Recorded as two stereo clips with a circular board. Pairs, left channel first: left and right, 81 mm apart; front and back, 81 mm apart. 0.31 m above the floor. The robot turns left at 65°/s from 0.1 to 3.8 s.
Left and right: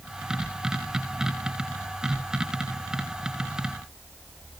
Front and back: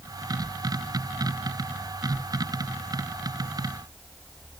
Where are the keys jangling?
I don't hear keys jangling.